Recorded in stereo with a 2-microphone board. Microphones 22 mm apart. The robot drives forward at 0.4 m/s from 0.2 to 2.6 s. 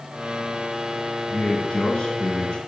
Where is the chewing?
No chewing in this recording.